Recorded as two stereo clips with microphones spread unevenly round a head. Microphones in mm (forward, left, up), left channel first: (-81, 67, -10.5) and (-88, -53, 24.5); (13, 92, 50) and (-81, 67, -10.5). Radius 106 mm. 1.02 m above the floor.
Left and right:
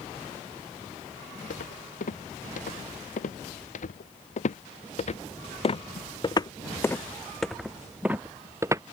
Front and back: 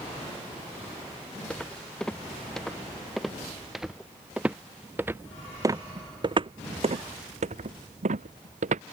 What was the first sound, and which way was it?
Footsteps, 90° left.